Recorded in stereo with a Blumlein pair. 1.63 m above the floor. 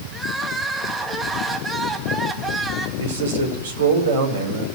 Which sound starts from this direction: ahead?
Crying, at 0.1 s.